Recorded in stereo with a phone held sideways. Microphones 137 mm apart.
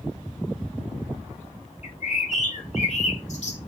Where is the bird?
55° left (ahead or behind), 0.9 m.